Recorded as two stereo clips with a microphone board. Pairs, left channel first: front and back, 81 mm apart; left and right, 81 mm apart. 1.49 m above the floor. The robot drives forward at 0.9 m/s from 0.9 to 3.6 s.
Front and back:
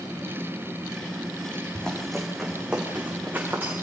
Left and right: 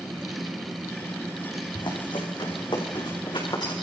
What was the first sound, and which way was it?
Running footsteps, 80° left.